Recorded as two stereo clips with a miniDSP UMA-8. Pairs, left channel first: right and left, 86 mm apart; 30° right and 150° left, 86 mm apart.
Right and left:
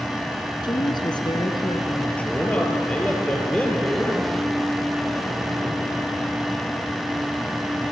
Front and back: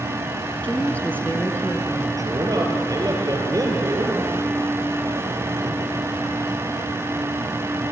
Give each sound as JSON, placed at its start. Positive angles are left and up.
{"t": 0.6, "sound": "a woman speaking", "azimuth_deg": -100, "distance_m": 3.0}
{"t": 2.2, "sound": "a man speaking", "azimuth_deg": -165, "distance_m": 4.5}